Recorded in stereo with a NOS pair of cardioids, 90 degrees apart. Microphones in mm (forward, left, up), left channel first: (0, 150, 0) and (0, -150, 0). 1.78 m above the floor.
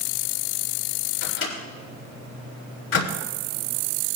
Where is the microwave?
50° left, 4 m.